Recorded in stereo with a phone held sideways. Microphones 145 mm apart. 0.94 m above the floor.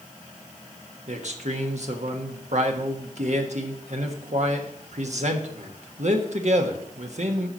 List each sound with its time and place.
1.1 s a man speaking: 60° right (ahead or behind), 1.3 m